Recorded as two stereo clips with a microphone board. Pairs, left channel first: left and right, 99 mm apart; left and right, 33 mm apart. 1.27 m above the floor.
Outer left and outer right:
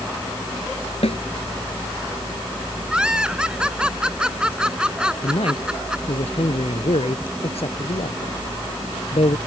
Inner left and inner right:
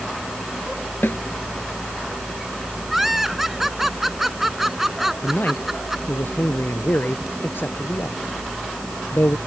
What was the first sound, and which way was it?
A snare drum, 90° left.